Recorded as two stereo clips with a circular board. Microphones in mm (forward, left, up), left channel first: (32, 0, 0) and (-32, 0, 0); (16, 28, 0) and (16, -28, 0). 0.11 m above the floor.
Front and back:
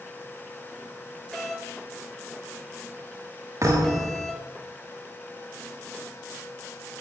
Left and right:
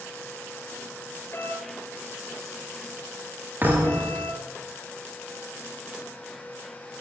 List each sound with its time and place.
1.3 s a doorbell: 85° left, 3 m
3.6 s a thud: 145° right, 8 m